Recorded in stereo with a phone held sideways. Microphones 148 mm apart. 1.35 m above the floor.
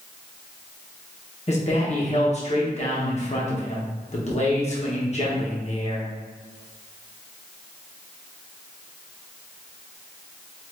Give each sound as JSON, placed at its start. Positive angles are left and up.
{"t": 1.5, "sound": "a man speaking", "side_deg": 45, "distance_m": 1.2}